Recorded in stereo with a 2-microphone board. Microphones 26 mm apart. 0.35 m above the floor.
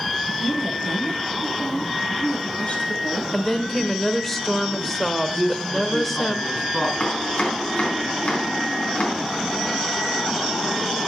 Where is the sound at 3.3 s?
10° left (ahead or behind), 1.0 m.